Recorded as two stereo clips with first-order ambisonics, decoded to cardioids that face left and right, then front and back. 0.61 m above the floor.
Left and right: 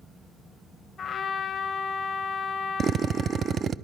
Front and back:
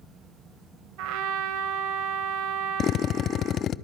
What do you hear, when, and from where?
1.0 s a trumpet: 160° left, 1.9 m
2.8 s a drill: 40° right, 0.5 m